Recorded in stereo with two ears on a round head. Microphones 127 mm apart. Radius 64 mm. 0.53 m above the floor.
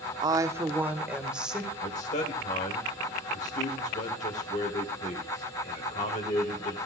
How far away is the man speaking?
About 1.7 m.